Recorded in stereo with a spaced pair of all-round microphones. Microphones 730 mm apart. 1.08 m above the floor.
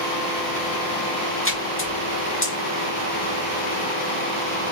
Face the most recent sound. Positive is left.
turn(degrees=20)  # may be behind; listen again after turning